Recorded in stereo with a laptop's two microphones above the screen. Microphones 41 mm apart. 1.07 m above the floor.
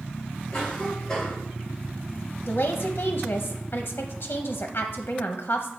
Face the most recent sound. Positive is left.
turn(degrees=65)  # may be behind; listen again after turning